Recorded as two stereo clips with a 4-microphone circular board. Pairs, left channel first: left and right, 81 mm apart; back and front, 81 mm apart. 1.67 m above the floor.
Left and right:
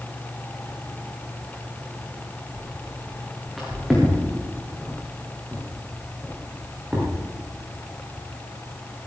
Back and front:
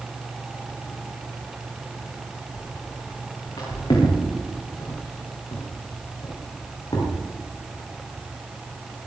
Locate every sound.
2.5 s footsteps: 175° left, 6 m; by 7.1 s 160° right, 6 m